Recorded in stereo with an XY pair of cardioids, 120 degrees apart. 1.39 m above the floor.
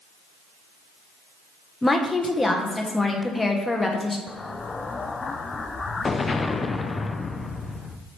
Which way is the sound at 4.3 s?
25° left.